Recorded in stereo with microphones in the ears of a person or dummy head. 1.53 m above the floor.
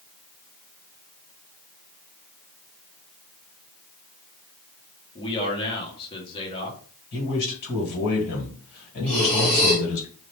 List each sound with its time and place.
5.2 s a man speaking: 25° left (ahead or behind), 1.4 m
7.1 s a man speaking: 60° left (ahead or behind), 2.0 m
9.1 s breathing: 5° left (ahead or behind), 1.3 m